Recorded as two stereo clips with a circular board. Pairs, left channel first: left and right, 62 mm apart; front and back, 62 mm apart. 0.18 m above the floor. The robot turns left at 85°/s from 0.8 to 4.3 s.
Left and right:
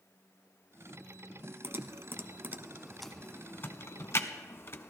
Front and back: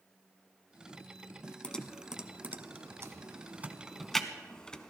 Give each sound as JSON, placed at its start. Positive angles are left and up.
{"t": 1.6, "sound": "typing on a keyboard", "azimuth_deg": -65, "distance_m": 0.7}